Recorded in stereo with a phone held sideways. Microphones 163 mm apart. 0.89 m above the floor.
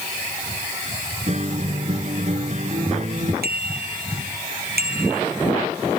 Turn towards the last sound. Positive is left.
turn(degrees=-85)